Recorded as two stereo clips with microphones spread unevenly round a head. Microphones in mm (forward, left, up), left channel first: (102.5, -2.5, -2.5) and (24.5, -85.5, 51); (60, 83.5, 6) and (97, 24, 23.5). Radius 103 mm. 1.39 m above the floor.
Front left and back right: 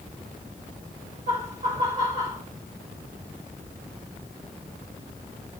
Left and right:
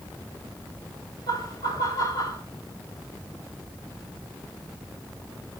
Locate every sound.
1.3 s laughter: 170° left, 5 m